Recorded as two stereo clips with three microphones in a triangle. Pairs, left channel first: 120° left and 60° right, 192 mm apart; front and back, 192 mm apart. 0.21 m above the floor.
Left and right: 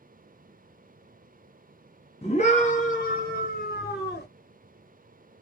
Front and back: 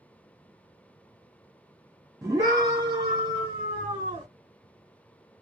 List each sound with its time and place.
2.2 s a scream: 125° left, 1.4 m